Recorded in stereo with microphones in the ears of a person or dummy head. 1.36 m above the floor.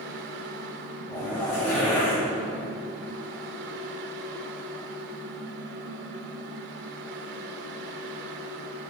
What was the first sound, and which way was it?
A fan, 70° right (ahead or behind).